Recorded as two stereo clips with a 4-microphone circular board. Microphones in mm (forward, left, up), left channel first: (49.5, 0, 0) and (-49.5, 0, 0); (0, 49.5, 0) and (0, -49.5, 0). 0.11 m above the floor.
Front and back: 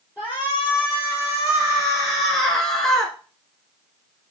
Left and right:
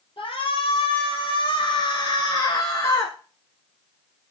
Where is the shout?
95° left, 3 m; by 3.1 s 70° left, 1.6 m.